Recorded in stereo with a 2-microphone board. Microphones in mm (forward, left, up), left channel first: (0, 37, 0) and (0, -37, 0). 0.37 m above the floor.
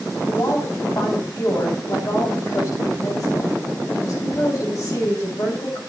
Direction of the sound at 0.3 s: 55° left (ahead or behind).